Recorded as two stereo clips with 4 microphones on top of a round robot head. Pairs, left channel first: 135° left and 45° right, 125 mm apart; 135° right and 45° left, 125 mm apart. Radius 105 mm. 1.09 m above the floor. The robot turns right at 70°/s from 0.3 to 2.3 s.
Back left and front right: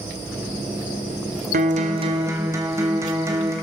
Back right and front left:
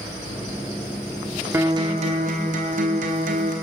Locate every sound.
1.5 s a guitar: 30° right, 1.4 m; by 3.5 s 25° left, 1.4 m